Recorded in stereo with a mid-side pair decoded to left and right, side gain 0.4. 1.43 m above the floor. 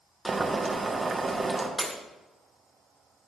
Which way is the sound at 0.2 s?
30° right.